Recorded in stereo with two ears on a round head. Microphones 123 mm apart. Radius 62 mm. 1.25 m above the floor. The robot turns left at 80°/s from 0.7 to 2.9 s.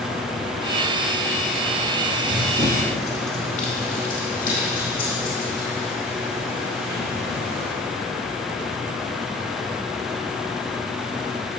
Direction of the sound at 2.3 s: 10° left (ahead or behind).